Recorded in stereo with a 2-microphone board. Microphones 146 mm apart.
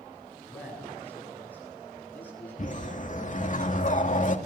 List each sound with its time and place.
0.5 s a man speaking: 10° left (ahead or behind), 9.5 m
2.6 s a whoosh: 55° left (ahead or behind), 2 m